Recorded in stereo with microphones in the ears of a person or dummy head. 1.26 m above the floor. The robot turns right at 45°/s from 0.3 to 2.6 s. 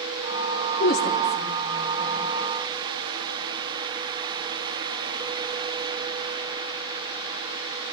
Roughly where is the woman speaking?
Left.